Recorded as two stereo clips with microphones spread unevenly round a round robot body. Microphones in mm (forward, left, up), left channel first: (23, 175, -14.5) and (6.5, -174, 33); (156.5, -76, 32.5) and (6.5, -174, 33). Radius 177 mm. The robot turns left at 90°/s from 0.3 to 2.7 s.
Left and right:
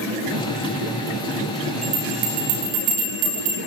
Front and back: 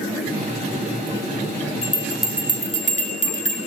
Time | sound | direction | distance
1.8 | a bell | 20° right | 6.5 m